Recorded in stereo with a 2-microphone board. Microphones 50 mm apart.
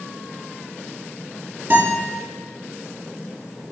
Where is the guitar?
45° right (ahead or behind), 6 m.